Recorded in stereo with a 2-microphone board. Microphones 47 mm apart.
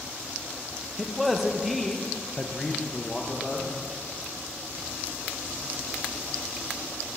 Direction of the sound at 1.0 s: Centre (ahead or behind).